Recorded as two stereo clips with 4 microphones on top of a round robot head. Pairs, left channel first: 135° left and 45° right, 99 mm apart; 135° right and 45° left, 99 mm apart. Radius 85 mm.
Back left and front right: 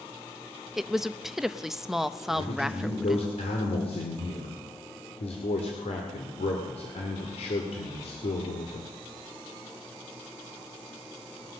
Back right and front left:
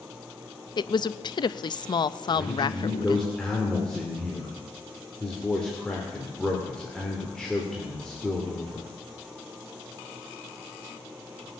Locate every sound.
0.8 s a woman speaking: 130° right, 0.6 m
2.3 s a man speaking: 140° left, 2.5 m